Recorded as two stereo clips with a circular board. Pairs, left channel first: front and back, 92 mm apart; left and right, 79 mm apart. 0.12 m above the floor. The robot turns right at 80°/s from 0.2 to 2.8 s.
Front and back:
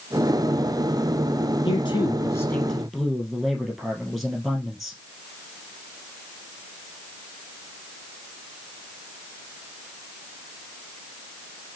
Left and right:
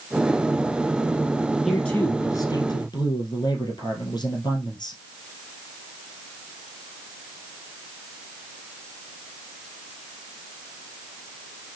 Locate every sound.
1.6 s a man speaking: straight ahead, 2 m; by 5.0 s 95° left, 2 m